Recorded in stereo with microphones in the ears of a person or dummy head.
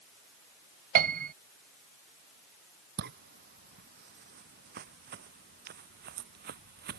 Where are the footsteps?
50° right (ahead or behind); by 7.0 s 55° right (ahead or behind).